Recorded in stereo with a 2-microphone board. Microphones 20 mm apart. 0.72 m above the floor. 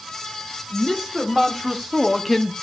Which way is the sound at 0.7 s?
25° right (ahead or behind).